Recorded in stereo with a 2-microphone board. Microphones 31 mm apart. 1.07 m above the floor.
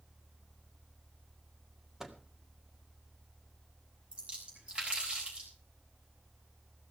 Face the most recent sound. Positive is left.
turn(degrees=-30)  # may be behind; listen again after turning